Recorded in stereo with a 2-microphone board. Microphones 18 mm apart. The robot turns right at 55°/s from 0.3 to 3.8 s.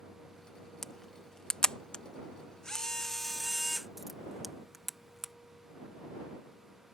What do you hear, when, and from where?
0.8 s a camera shutter: 20° left (ahead or behind); by 5.3 s 5° right (ahead or behind)